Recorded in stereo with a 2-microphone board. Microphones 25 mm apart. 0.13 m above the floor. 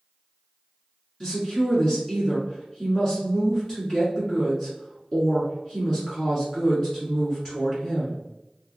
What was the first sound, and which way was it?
A woman speaking, 30° left (ahead or behind).